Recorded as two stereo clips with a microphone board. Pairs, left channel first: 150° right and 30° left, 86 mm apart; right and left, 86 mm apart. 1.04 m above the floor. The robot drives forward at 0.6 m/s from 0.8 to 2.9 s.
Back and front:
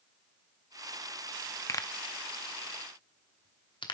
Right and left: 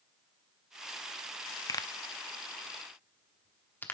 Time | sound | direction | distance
1.7 | a pop | 110° right | 0.5 m